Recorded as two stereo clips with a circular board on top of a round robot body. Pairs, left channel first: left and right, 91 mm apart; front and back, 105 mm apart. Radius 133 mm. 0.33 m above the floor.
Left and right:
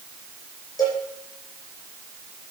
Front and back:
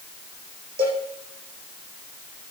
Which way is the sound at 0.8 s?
140° left.